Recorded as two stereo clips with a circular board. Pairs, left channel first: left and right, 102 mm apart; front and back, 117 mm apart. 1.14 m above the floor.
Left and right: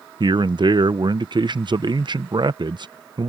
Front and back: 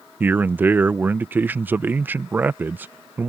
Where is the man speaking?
110° right.